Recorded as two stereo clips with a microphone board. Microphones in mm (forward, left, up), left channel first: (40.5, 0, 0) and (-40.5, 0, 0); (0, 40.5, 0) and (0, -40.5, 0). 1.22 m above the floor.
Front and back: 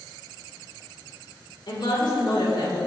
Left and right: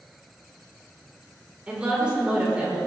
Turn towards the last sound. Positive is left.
turn(degrees=-15)